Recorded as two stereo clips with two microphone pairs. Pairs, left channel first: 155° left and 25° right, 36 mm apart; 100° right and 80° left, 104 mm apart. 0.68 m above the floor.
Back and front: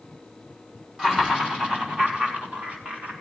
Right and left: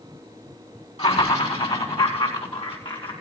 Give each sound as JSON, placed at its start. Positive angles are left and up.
{"t": 1.0, "sound": "laughter", "azimuth_deg": -95, "distance_m": 4.5}